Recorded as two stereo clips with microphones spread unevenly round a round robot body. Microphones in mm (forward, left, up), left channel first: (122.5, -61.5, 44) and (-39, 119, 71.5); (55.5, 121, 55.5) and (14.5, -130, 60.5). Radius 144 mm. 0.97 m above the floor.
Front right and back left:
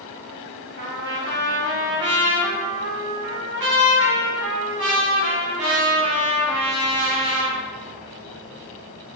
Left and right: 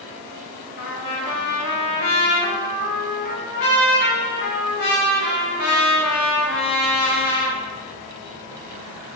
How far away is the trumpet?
About 1.0 m.